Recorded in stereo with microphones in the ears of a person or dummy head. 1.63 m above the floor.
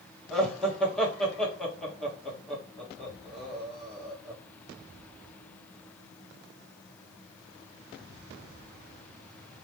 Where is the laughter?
10° left (ahead or behind), 1.4 m.